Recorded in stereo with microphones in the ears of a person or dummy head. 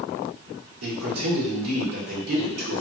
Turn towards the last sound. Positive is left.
turn(degrees=-75)  # may be behind; listen again after turning